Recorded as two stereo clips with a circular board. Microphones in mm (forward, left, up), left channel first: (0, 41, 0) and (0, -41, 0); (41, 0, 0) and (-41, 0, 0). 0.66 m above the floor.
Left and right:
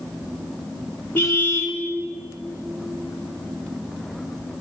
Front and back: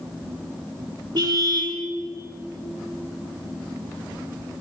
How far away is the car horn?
About 3.5 m.